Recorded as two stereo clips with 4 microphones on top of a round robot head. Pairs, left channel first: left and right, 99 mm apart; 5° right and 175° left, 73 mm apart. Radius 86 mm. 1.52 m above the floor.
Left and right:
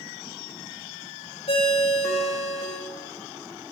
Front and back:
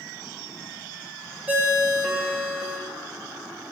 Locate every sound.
1.5 s a ringtone: 110° left, 2 m